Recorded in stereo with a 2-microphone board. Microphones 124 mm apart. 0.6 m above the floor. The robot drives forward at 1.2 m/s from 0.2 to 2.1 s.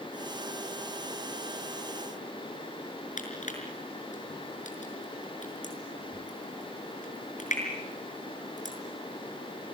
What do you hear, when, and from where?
3.2 s crushing: 70° left (ahead or behind), 5.5 m